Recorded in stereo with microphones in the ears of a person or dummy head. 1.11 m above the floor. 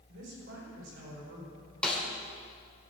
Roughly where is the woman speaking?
Right.